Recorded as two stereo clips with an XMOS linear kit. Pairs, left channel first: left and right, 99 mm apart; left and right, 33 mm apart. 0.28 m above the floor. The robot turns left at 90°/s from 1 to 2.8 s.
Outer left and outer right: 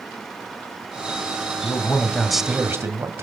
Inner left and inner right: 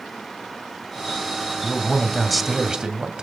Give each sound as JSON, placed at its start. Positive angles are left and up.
{"t": 1.6, "sound": "a man speaking", "azimuth_deg": 60, "distance_m": 1.4}